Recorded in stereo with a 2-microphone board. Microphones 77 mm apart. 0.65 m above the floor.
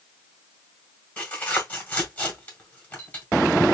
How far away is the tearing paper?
About 1.6 m.